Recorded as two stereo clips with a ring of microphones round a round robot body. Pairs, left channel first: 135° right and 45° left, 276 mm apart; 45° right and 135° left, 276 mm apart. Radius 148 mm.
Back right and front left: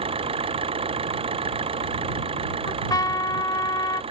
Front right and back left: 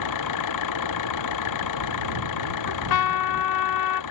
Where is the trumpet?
55° right.